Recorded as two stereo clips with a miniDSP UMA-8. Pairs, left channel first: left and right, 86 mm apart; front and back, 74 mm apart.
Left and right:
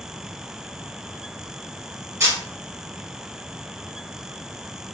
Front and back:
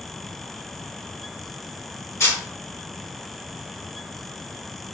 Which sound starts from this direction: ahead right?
A camera shutter, at 2.2 s.